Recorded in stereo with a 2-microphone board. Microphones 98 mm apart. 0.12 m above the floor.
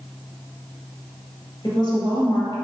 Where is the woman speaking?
50° left (ahead or behind), 1.7 m.